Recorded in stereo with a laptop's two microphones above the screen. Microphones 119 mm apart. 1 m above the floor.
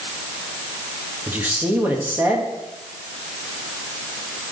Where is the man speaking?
15° right (ahead or behind), 1.5 m.